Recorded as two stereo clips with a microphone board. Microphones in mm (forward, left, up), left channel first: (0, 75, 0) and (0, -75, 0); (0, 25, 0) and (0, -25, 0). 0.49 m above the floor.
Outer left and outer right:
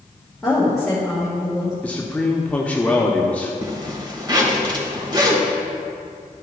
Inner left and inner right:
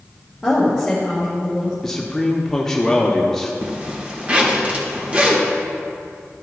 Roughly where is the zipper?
Right.